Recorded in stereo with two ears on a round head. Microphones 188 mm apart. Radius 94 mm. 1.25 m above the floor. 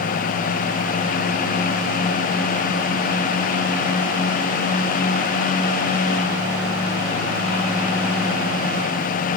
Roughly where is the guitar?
I don't hear a guitar.